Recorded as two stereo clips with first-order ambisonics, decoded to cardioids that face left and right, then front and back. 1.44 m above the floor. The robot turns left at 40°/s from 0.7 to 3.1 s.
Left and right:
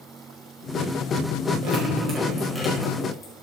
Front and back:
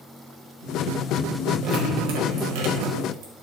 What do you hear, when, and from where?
1.6 s dripping: 140° right, 5 m; by 3.3 s 160° left, 5 m